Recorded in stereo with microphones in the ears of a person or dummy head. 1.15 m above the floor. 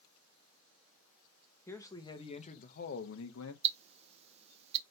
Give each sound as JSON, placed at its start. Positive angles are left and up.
{"t": 1.7, "sound": "a man speaking", "side_deg": 15, "distance_m": 1.0}
{"t": 3.6, "sound": "ticking", "side_deg": -35, "distance_m": 0.5}